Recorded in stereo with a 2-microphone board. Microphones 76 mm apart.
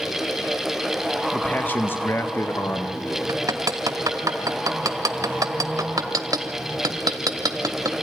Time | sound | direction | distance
1.3 | a man speaking | 20° left (ahead or behind) | 1.0 m
3.3 | hammering | 50° right (ahead or behind) | 1.1 m